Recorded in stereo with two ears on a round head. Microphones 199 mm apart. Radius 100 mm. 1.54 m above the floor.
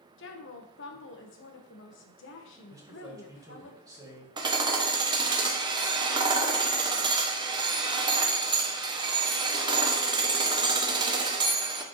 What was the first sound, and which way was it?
A woman speaking, 55° left (ahead or behind).